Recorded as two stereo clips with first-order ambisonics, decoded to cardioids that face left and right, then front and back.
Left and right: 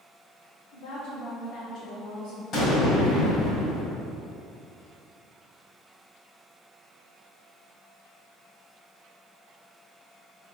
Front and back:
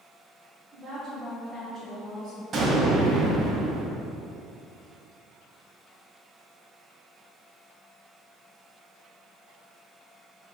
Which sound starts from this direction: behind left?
An explosion, at 2.5 s.